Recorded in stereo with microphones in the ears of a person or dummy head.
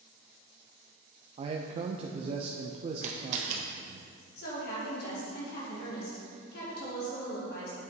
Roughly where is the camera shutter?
Right.